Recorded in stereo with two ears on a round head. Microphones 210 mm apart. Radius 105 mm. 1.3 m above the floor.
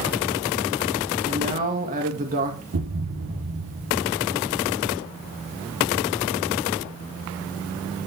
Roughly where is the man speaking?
Right.